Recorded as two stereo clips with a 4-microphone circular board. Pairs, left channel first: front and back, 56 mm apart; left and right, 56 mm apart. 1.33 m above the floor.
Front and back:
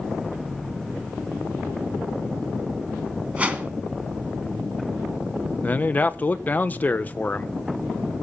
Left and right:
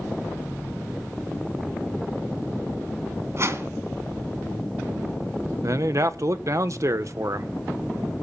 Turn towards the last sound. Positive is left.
turn(degrees=-60)